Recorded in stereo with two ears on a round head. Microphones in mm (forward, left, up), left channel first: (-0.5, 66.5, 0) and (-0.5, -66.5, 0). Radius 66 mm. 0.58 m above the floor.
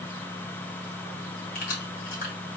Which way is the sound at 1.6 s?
55° left (ahead or behind).